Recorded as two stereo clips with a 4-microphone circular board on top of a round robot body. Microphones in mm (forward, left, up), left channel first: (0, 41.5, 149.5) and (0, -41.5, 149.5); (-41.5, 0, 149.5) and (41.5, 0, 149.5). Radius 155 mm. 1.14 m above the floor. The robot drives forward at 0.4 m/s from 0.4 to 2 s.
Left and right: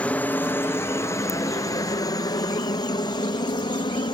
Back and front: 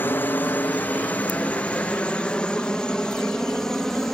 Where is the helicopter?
145° left; by 4.2 s 95° left.